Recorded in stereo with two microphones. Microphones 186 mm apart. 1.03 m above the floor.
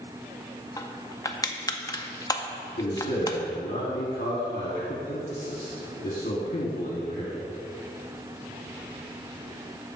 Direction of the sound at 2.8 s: 50° left (ahead or behind).